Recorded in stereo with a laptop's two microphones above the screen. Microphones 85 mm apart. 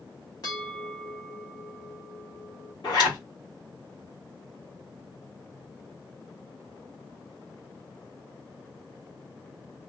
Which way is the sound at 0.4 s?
45° left (ahead or behind).